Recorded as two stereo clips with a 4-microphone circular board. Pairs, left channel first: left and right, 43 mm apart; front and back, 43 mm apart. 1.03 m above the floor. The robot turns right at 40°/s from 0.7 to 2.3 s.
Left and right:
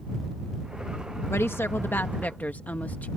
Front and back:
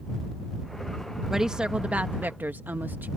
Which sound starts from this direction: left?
A woman speaking, at 1.3 s.